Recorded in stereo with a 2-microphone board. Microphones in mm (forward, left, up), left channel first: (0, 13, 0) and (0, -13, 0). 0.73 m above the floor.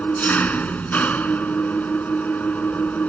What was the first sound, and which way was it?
An engine running, 85° left.